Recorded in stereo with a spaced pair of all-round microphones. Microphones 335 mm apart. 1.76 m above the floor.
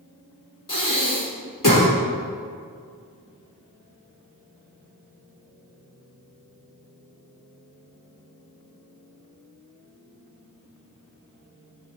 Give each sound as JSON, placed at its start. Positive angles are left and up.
{"t": 0.7, "sound": "breathing", "side_deg": 65, "distance_m": 2.5}